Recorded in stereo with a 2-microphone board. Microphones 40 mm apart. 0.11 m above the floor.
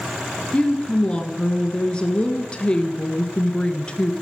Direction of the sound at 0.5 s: 25° left (ahead or behind).